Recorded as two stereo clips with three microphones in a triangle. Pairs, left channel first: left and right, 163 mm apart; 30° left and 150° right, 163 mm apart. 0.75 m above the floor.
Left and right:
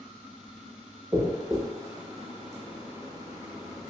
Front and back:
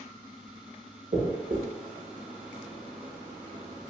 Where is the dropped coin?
160° right, 0.6 m.